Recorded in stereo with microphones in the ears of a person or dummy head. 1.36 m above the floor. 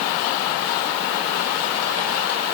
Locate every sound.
Only background noise.